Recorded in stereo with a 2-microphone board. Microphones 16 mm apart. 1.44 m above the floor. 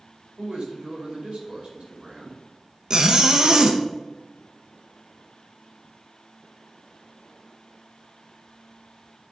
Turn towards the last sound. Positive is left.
turn(degrees=-30)  # may be behind; listen again after turning